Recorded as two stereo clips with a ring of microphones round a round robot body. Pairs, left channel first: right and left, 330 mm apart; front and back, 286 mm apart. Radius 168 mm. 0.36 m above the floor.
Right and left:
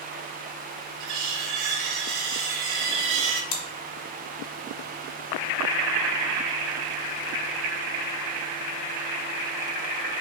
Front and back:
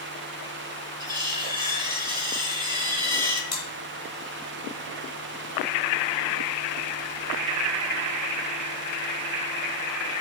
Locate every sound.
1.0 s cutlery clinking: 105° left, 0.9 m
3.5 s chewing: 80° right, 1.1 m